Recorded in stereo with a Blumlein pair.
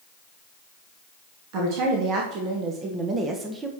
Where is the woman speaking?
45° right, 2 m; by 3.7 s 10° right, 1.3 m.